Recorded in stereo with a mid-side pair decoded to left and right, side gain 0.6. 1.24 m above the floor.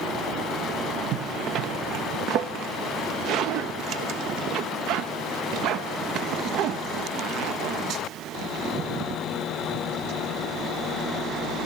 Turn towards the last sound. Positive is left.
turn(degrees=-60)